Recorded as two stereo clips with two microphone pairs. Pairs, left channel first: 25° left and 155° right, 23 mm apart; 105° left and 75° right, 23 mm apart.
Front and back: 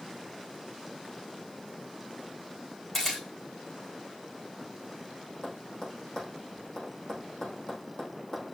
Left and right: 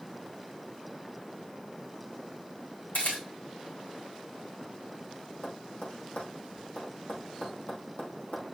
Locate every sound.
2.9 s a camera shutter: 105° left, 5 m
5.4 s tapping: 90° left, 4 m